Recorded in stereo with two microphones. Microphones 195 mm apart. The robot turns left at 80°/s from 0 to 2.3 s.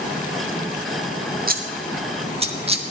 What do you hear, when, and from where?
1.5 s scissors: 45° right (ahead or behind), 1.2 m; by 2.9 s 30° right (ahead or behind), 1.2 m